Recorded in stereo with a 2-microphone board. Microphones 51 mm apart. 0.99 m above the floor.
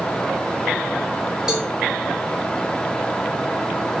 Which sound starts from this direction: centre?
A cowbell, at 1.5 s.